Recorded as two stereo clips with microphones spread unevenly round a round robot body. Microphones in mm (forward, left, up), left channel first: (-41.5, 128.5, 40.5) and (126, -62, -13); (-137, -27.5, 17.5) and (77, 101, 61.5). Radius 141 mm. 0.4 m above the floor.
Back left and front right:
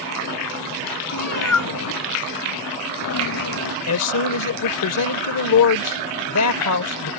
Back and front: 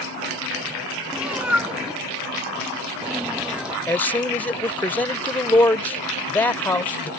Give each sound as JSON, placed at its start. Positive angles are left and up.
{"t": 1.1, "sound": "a cat meowing", "azimuth_deg": 115}
{"t": 3.9, "sound": "a man speaking", "azimuth_deg": 135}